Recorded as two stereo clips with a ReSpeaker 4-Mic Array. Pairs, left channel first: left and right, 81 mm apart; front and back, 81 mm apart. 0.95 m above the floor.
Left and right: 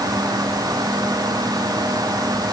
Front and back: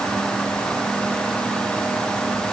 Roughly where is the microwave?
No microwave in this recording.